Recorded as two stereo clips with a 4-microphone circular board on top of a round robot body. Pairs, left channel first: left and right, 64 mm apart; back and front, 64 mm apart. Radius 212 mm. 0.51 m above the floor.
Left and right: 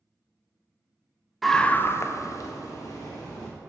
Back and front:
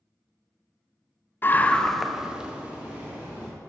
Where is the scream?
Straight behind, 0.7 m; by 3.5 s 65° left, 1.9 m.